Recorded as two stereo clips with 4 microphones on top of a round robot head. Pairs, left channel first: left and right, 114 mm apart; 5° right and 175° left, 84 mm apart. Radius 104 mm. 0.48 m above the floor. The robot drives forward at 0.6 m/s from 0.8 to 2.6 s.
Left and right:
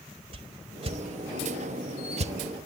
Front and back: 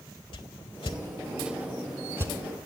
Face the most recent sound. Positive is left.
turn(degrees=-135)